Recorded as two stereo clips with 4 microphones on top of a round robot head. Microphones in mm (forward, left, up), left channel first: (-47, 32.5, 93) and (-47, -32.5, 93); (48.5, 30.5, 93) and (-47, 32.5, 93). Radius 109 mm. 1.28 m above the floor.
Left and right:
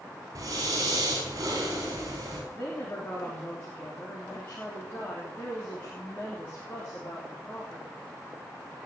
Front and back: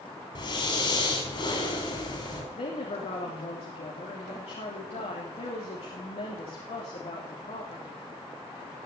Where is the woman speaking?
20° left, 3.5 m.